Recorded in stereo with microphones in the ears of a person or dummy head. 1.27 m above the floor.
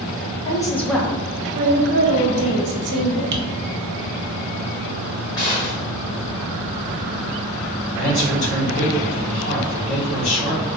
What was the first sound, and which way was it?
A woman speaking, 25° left (ahead or behind).